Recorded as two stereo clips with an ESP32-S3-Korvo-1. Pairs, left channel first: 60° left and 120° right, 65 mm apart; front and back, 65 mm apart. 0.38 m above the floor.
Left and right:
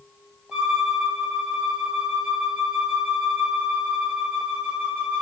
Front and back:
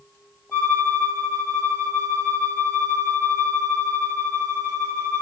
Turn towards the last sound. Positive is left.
turn(degrees=-55)